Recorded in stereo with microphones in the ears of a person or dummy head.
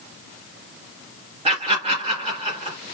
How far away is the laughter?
About 2 m.